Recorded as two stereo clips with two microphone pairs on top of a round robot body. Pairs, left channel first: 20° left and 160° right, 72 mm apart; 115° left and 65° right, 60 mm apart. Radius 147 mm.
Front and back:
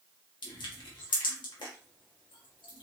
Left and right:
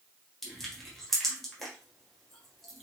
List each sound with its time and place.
0.4 s crushing: 30° left, 1.6 m